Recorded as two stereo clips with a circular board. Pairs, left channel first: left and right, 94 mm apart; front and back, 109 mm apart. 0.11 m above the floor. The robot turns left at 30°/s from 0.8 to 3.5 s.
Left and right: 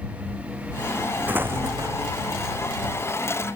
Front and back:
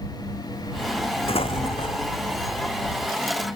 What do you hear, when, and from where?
1.3 s an explosion: 20° right; by 2.2 s 45° right